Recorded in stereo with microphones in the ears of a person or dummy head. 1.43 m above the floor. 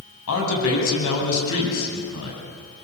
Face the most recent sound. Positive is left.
turn(degrees=75)  # may be behind; listen again after turning